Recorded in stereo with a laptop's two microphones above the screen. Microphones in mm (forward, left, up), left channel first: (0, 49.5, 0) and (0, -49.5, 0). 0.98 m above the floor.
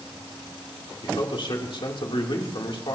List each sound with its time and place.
1.0 s a man speaking: 55° left (ahead or behind), 3 m